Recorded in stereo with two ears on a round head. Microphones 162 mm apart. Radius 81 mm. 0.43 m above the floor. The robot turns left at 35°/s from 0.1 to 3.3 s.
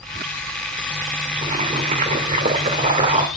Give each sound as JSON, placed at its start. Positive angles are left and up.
{"t": 1.4, "sound": "boiling", "azimuth_deg": -65, "distance_m": 1.8}